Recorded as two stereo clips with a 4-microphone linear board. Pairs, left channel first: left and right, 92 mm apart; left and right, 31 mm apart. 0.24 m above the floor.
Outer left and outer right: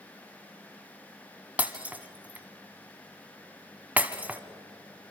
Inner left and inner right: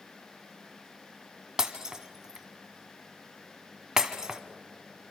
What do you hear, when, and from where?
1.6 s breaking glass: 15° right (ahead or behind), 1.3 m